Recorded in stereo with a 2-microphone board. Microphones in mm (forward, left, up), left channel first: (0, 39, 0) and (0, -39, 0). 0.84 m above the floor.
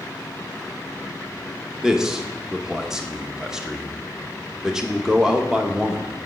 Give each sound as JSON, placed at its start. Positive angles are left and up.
{"t": 1.8, "sound": "a man speaking", "side_deg": -10, "distance_m": 0.8}